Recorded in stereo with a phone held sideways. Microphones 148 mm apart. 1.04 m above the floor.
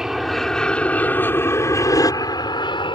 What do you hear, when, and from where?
0.0 s an aircraft: 5° right (ahead or behind); by 3.0 s 35° left (ahead or behind)